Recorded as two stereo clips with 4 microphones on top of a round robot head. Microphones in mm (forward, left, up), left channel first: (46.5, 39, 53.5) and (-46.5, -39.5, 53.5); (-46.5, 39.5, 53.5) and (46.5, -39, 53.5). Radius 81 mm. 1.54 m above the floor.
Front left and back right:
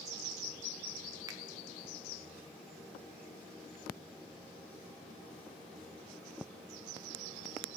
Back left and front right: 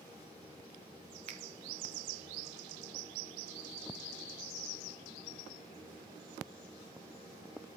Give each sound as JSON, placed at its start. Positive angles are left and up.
{"t": 1.3, "sound": "a finger snap", "azimuth_deg": -80, "distance_m": 0.6}